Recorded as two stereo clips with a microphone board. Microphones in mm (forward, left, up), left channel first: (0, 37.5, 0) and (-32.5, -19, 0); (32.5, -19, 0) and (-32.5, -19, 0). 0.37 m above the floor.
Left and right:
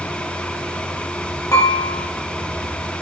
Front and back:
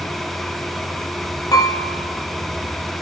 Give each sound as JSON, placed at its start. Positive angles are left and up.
{"t": 1.5, "sound": "dishes clattering", "azimuth_deg": 25, "distance_m": 7.5}